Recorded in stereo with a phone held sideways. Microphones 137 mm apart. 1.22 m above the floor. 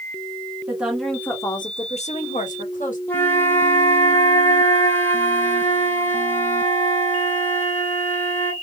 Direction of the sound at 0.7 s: 10° right (ahead or behind).